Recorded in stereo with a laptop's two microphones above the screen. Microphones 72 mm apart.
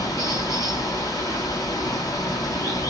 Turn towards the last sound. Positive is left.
turn(degrees=50)  # may be behind; listen again after turning